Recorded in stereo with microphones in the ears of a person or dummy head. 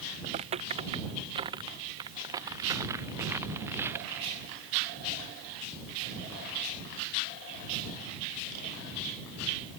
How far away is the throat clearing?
No throat clearing in this recording.